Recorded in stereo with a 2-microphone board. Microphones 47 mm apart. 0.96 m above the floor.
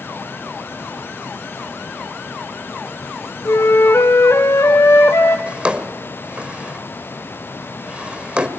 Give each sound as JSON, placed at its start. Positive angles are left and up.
{"t": 3.5, "sound": "a flute", "side_deg": 65, "distance_m": 2.5}
{"t": 5.5, "sound": "a drawer", "side_deg": -20, "distance_m": 1.7}